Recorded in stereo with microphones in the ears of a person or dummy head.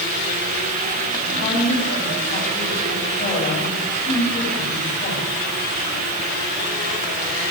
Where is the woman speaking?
30° left (ahead or behind), 9 m.